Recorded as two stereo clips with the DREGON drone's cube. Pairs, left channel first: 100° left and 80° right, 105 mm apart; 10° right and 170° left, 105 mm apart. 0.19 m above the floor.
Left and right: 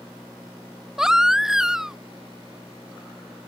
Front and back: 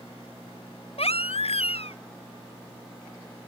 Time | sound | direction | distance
1.0 | a baby crying | 5° left | ?